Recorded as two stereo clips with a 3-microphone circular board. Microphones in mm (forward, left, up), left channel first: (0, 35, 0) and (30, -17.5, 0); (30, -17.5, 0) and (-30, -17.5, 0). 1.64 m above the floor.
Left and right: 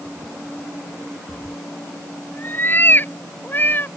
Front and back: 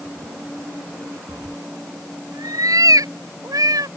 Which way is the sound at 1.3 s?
175° left.